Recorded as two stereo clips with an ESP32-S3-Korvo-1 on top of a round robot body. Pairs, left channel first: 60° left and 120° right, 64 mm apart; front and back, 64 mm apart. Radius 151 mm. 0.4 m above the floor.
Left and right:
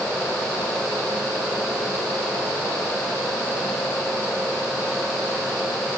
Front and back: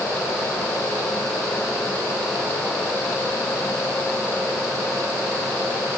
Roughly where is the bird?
I don't hear a bird.